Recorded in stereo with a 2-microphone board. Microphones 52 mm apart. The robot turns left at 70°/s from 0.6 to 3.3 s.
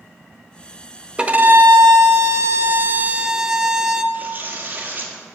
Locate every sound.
1.2 s a violin: 20° right, 0.7 m; by 4.0 s 165° right, 0.7 m
4.1 s tearing paper: 35° right (ahead or behind), 1.6 m